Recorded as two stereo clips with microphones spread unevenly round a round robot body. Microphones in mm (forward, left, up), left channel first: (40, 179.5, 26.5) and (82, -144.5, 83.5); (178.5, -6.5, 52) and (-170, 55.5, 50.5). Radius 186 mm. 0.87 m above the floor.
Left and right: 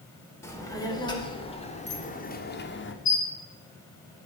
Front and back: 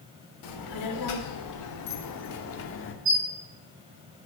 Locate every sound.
0.4 s a child speaking: 15° left, 2.5 m; by 3.0 s 45° left, 1.6 m
3.0 s a squeak: 165° left, 3 m